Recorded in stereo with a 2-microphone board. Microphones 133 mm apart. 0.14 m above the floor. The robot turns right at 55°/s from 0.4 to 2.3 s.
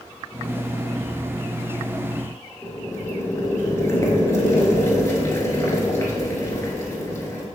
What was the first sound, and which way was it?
Boiling, 25° left (ahead or behind).